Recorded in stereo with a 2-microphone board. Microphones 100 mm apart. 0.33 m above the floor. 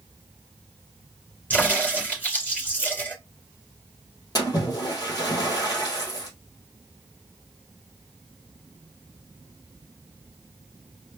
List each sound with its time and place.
1.5 s a crack: 15° left (ahead or behind), 3.5 m
4.3 s a splash: 40° left (ahead or behind), 2 m